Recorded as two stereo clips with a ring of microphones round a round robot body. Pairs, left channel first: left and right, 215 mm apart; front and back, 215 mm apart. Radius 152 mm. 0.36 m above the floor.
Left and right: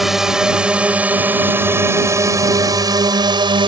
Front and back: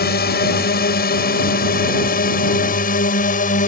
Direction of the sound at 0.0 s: Straight ahead.